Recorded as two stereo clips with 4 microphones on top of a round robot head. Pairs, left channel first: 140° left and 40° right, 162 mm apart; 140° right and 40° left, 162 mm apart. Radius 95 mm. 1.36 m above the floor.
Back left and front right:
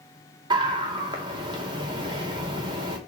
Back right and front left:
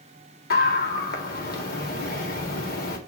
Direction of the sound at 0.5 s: 105° right.